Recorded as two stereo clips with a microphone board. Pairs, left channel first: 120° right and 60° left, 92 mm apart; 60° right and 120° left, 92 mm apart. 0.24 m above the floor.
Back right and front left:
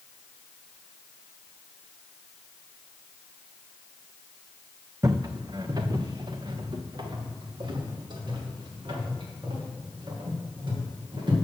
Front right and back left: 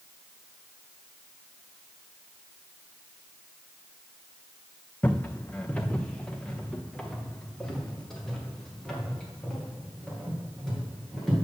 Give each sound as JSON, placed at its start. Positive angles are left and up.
{"t": 5.0, "sound": "footsteps", "azimuth_deg": 10, "distance_m": 0.6}